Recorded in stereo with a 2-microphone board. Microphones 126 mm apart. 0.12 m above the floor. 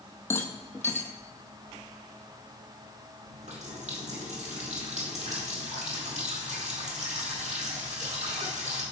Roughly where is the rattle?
Left.